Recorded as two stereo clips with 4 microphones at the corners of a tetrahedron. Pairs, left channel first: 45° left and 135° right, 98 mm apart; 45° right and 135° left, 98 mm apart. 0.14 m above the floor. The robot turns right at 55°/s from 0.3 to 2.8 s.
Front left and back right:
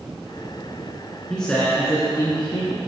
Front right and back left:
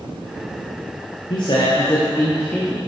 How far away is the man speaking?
About 2 m.